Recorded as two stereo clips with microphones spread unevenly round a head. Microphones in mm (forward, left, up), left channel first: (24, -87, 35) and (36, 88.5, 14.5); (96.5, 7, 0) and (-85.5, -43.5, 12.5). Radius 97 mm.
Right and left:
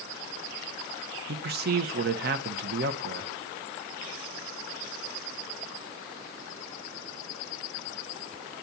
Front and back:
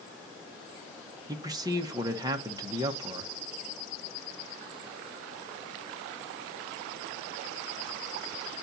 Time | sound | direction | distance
1.3 | a man speaking | 125° left | 1.2 m